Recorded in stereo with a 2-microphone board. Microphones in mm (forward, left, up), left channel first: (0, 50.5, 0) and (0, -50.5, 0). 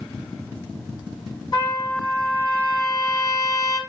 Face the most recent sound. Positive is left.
turn(degrees=45)  # may be behind; listen again after turning